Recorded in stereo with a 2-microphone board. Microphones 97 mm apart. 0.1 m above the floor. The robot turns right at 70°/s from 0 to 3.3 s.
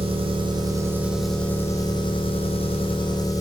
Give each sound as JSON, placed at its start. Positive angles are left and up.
{"t": 0.0, "sound": "an engine running", "azimuth_deg": -90, "distance_m": 1.4}